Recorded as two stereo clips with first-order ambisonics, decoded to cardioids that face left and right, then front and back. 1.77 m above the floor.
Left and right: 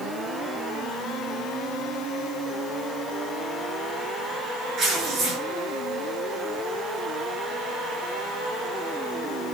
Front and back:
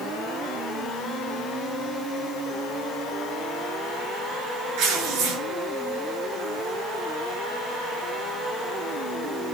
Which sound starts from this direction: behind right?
Tearing paper, at 4.8 s.